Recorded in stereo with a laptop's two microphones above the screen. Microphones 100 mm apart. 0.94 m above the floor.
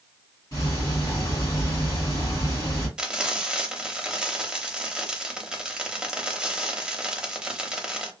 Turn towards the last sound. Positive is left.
turn(degrees=-10)  # may be behind; listen again after turning